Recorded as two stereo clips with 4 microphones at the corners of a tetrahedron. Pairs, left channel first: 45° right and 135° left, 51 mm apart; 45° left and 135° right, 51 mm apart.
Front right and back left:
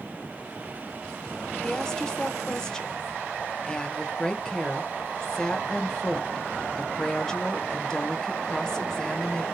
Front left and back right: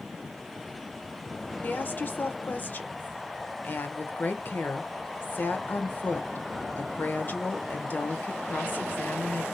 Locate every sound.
1.6 s a woman speaking: 25° left, 0.9 m